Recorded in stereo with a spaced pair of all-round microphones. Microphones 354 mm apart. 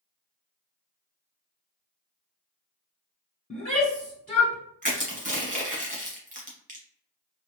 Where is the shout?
25° left (ahead or behind), 1.1 m.